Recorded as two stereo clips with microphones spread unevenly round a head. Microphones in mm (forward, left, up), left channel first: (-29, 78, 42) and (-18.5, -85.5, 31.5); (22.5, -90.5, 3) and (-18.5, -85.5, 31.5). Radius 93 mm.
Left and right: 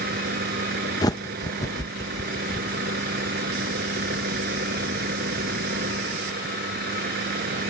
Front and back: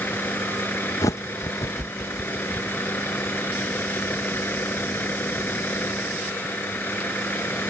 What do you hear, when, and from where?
0.0 s a vehicle: 45° right
1.0 s a bird: 25° left